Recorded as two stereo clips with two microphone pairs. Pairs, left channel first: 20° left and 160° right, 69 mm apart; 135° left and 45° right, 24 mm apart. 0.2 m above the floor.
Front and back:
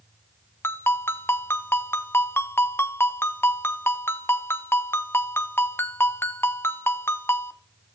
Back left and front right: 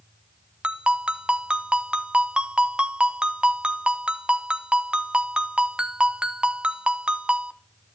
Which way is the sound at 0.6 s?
20° right.